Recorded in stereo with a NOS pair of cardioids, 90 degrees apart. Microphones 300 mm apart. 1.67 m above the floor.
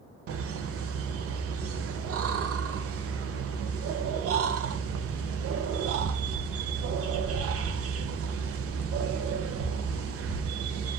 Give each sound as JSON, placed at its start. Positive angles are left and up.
{"t": 0.3, "sound": "laughter", "azimuth_deg": -50, "distance_m": 0.5}